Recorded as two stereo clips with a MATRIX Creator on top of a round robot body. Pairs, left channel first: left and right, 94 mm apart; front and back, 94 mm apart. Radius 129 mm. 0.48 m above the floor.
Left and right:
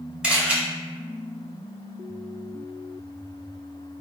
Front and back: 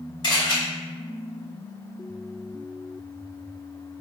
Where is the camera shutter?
10° right, 1.9 m.